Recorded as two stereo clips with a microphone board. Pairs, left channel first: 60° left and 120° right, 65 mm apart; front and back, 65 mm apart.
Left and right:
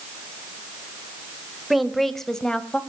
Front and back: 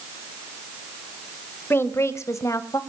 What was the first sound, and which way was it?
A woman speaking, 35° right.